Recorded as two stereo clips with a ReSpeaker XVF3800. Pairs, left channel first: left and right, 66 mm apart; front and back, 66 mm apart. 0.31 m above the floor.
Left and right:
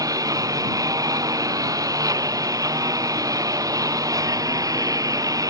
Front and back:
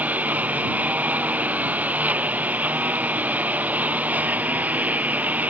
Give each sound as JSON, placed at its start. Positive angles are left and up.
{"t": 0.0, "sound": "a lawn mower", "azimuth_deg": -110}